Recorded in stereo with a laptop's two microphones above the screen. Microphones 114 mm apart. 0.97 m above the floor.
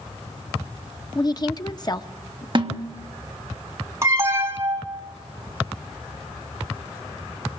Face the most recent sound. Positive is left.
turn(degrees=-25)  # may be behind; listen again after turning